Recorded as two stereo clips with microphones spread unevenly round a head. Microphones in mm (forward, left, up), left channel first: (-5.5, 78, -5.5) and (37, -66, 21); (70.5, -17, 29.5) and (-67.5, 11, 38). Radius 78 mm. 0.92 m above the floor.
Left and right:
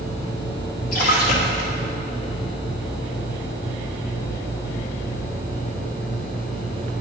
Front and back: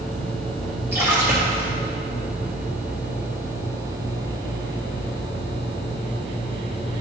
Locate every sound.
0.9 s a splash: 95° left, 1.9 m